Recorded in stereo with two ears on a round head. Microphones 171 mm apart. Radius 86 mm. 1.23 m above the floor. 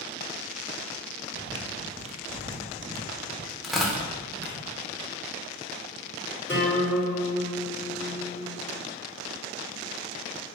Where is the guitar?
10° left (ahead or behind), 4 m.